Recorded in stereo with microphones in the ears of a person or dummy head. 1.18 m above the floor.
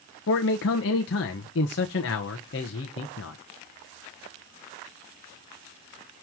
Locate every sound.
0.3 s a man speaking: 55° left (ahead or behind), 1.1 m